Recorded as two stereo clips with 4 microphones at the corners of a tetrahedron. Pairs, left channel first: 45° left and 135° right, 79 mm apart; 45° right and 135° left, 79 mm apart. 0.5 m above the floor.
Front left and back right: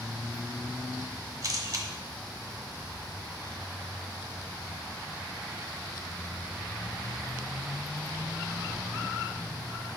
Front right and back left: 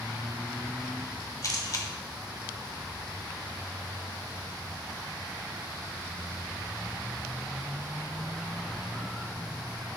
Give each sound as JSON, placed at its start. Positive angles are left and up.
{"t": 1.4, "sound": "a camera shutter", "azimuth_deg": -90, "distance_m": 1.0}